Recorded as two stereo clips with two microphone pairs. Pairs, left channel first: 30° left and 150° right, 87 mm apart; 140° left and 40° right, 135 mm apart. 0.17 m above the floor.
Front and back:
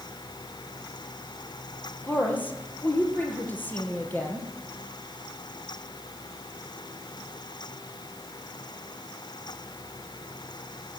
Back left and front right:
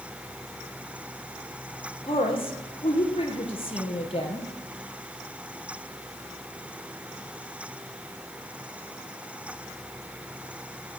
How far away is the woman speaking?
About 4 m.